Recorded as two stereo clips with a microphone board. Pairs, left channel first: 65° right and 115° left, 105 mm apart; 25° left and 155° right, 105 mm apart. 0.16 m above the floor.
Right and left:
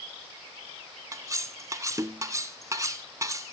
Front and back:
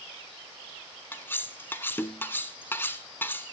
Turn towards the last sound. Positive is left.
turn(degrees=80)